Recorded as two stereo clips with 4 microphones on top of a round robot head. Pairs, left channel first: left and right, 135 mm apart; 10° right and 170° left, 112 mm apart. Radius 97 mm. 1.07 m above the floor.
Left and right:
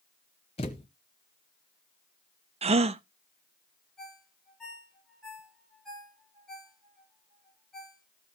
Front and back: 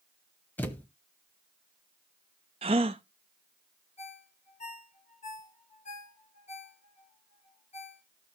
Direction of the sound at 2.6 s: 135° right.